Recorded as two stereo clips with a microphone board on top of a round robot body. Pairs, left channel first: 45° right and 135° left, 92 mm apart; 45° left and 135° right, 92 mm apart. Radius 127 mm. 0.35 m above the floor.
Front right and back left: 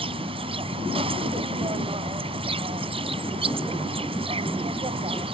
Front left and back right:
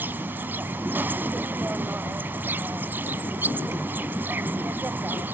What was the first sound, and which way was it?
An insect, 155° left.